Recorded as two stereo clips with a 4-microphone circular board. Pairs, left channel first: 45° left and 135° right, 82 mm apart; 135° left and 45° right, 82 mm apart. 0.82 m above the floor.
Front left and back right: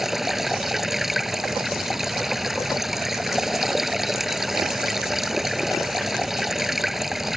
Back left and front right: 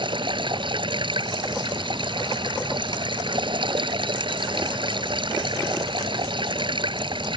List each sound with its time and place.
0.0 s running water: 50° right